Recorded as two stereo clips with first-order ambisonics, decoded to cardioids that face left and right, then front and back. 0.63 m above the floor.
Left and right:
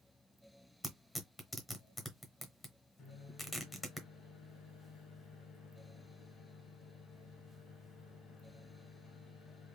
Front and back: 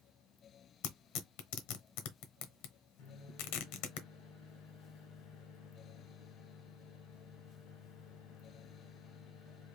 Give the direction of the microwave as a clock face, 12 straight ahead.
11 o'clock.